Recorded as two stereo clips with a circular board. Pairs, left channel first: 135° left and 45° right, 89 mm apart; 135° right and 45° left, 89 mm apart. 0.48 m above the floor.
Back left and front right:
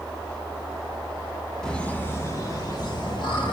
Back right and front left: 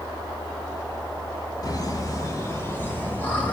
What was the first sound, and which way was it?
Laughter, 145° right.